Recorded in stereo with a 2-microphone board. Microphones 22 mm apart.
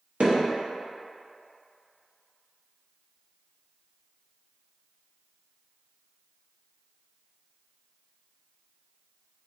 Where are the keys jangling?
I don't hear keys jangling.